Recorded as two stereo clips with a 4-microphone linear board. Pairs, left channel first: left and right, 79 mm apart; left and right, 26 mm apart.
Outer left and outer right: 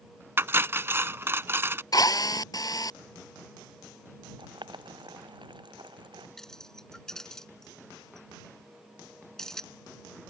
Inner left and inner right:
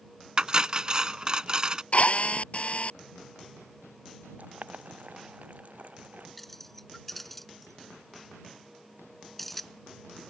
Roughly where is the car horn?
No car horn in this recording.